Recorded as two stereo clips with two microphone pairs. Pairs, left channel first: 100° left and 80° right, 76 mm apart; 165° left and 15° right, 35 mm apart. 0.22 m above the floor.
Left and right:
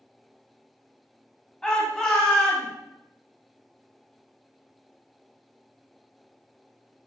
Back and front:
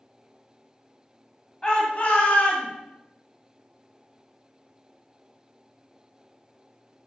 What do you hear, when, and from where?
1.6 s a shout: 160° left, 1.5 m; by 2.7 s 170° right, 2.5 m